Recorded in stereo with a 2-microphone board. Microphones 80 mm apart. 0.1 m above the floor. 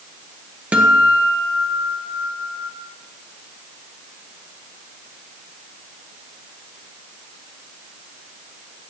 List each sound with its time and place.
0.7 s a guitar: 15° right (ahead or behind), 1.3 m